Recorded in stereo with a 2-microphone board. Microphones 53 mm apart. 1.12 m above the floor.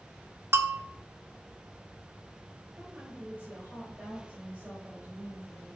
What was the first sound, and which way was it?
A bell, 60° right (ahead or behind).